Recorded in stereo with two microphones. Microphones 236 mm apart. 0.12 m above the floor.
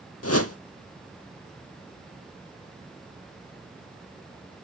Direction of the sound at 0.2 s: 80° left.